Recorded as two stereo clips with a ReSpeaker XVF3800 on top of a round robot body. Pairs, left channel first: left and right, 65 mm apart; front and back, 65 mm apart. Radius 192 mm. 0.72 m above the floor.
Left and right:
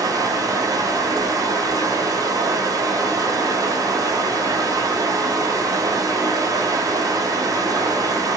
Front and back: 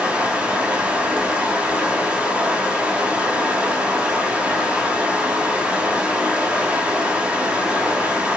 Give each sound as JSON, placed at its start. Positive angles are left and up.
{"t": 0.0, "sound": "running water", "azimuth_deg": -105, "distance_m": 1.0}